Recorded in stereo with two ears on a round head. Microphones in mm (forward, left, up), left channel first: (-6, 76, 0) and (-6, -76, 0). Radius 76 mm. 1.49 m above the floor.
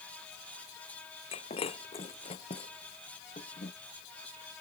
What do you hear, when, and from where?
1.3 s breaking glass: 35° left (ahead or behind)